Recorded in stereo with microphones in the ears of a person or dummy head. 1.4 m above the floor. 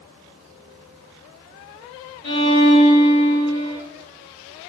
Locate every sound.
2.2 s a violin: 30° left (ahead or behind), 1.1 m